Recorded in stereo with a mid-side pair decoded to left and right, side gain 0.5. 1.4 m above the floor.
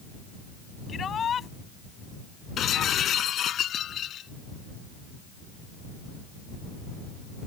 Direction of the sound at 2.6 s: 55° left.